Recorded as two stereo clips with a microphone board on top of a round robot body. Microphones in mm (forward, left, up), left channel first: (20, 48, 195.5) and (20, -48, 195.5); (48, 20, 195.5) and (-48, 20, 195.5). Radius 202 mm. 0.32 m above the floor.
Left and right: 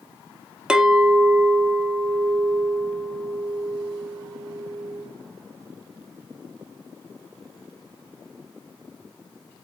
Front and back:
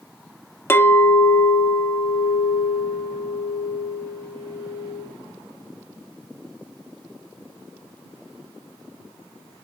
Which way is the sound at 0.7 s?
20° right.